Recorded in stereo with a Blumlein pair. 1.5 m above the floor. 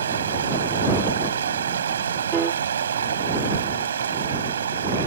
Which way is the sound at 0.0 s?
70° right.